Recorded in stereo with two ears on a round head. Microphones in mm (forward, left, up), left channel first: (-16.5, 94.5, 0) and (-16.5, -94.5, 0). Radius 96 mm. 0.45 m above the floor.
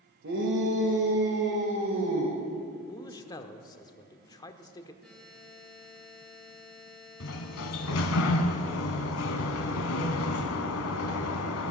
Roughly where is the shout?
Right.